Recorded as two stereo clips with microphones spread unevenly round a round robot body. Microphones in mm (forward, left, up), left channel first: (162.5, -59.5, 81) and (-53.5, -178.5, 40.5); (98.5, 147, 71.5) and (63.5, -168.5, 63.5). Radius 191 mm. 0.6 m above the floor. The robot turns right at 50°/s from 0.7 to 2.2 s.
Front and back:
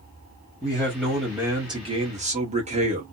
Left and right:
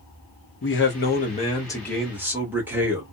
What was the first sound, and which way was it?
A man speaking, 110° left.